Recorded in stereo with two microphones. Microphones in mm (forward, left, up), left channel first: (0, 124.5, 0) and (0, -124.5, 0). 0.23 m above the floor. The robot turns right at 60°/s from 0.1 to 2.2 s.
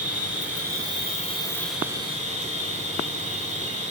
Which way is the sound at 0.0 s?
85° left.